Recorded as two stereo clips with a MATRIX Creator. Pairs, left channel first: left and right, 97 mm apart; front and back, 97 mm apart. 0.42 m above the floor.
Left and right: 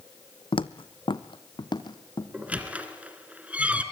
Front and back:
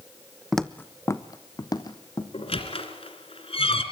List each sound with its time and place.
0.5 s footsteps: 90° left, 0.8 m; by 2.2 s 45° left, 3 m
2.3 s a squeak: 15° right, 2.5 m